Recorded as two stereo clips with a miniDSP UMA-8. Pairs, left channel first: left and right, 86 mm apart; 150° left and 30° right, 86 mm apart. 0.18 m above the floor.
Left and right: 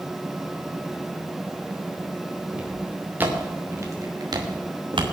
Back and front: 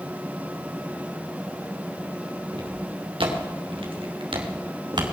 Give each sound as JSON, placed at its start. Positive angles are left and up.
{"t": 2.5, "sound": "footsteps", "azimuth_deg": -10, "distance_m": 5.0}